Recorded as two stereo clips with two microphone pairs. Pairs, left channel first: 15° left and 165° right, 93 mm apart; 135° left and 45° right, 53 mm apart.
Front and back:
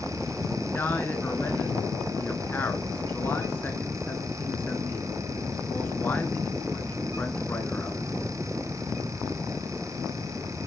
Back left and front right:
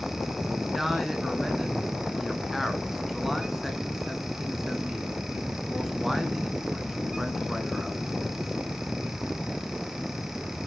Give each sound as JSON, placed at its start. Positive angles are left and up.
{"t": 0.6, "sound": "a man speaking", "azimuth_deg": 40, "distance_m": 1.1}